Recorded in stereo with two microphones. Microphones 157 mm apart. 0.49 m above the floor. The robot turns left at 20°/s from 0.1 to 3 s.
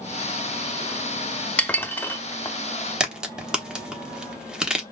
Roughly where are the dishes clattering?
Centre.